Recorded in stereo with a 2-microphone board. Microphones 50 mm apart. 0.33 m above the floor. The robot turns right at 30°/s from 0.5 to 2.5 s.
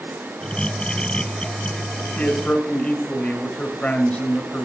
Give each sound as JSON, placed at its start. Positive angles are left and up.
{"t": 2.2, "sound": "a man speaking", "side_deg": 30, "distance_m": 1.6}